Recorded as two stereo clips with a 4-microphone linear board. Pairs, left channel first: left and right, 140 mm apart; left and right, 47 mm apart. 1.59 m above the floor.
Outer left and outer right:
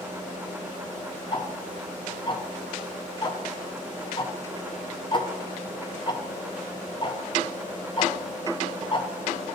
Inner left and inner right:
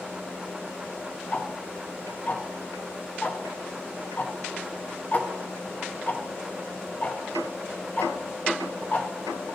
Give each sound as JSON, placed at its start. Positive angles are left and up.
{"t": 1.3, "sound": "ticking", "side_deg": 35, "distance_m": 0.6}